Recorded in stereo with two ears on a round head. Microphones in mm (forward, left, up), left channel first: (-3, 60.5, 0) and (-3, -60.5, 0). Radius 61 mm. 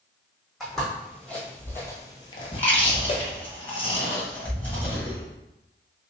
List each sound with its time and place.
0.6 s footsteps: centre (ahead or behind), 2.0 m; by 3.2 s 45° left (ahead or behind), 1.1 m
2.5 s chewing: 15° left (ahead or behind), 1.3 m